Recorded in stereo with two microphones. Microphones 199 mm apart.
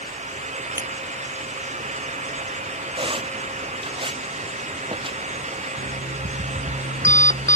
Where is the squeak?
30° right (ahead or behind).